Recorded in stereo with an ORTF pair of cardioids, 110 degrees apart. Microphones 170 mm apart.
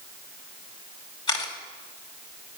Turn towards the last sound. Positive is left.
turn(degrees=30)